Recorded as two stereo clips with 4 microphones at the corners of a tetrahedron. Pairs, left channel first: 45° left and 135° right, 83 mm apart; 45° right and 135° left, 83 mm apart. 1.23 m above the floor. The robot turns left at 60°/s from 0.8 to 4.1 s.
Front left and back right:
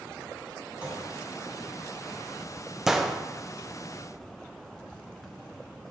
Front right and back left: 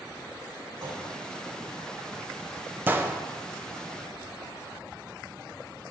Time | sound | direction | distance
0.8 | a clunk | 155° left | 2.5 m
2.9 | a gunshot | 150° left | 0.5 m